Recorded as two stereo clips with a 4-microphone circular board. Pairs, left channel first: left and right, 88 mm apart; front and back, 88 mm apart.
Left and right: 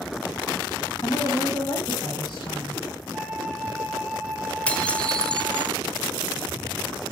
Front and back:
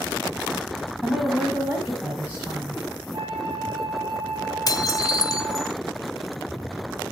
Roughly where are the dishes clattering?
Ahead.